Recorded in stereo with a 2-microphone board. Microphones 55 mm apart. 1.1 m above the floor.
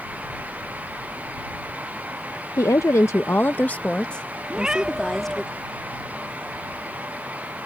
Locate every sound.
2.6 s a woman speaking: 70° left (ahead or behind); by 5.5 s 5° left (ahead or behind)
4.5 s a cat meowing: 15° right (ahead or behind)